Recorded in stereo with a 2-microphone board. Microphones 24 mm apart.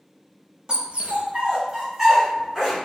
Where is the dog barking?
35° right (ahead or behind), 0.8 m; by 2.8 s 10° right (ahead or behind), 2.5 m.